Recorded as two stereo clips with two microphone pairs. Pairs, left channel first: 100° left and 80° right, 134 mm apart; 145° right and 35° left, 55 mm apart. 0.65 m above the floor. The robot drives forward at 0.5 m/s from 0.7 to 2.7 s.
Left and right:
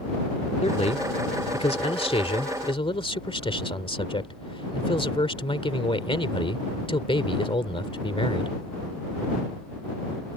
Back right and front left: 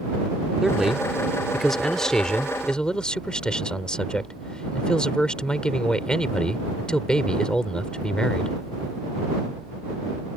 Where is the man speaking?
115° left; by 8.6 s 140° left.